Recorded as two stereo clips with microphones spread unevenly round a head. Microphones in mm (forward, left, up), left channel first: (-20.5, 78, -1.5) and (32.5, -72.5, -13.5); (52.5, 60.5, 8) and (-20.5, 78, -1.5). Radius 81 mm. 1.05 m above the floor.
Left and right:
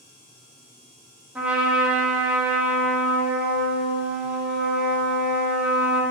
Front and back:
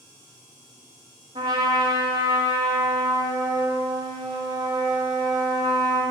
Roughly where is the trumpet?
Behind right.